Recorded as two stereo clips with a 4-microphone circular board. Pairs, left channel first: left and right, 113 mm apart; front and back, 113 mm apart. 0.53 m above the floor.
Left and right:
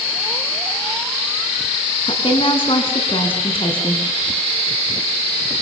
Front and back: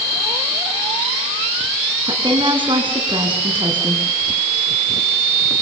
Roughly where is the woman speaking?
Behind left.